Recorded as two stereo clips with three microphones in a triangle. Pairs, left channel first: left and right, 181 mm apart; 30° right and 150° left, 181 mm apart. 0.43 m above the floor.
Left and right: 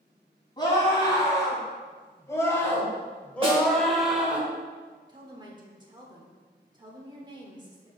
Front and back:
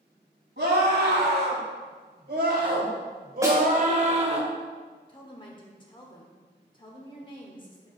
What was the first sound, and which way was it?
A scream, 155° left.